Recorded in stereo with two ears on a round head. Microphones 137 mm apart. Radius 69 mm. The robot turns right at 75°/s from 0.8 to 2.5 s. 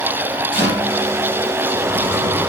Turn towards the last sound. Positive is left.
turn(degrees=90)